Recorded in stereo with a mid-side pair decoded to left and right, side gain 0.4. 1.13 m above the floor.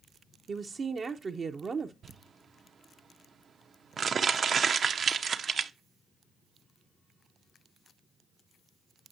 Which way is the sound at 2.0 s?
50° right.